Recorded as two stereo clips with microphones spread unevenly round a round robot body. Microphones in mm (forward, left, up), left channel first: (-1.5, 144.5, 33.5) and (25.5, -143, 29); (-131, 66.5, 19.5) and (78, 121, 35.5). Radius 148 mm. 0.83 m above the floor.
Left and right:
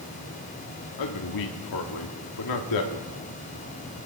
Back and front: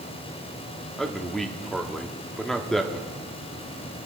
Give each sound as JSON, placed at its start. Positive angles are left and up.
{"t": 1.0, "sound": "a man speaking", "azimuth_deg": 105, "distance_m": 1.7}